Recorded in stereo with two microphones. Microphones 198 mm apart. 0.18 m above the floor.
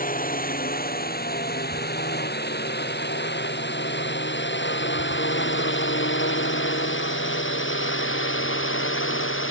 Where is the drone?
40° left (ahead or behind); by 9.5 s 75° left (ahead or behind).